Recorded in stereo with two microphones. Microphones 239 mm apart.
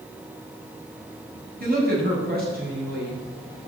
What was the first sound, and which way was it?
A woman speaking, 40° right (ahead or behind).